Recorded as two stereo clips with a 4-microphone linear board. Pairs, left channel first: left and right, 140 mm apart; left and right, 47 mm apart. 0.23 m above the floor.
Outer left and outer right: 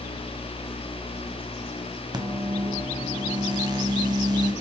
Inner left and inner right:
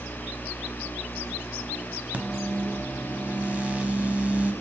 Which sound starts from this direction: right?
A microwave, at 2.1 s.